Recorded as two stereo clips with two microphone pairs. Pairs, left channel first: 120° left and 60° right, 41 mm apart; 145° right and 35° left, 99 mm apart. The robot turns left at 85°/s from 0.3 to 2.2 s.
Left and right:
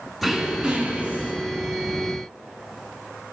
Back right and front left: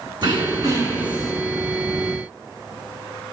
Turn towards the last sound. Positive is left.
turn(degrees=-135)